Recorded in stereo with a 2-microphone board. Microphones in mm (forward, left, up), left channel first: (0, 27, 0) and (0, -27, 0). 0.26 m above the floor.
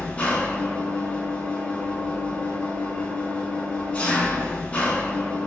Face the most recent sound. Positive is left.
turn(degrees=25)  # may be behind; listen again after turning